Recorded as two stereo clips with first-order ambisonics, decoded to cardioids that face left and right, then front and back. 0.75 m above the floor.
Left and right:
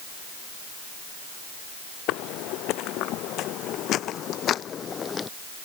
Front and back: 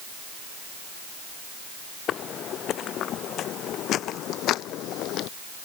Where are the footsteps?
55° left; by 5.3 s 20° left.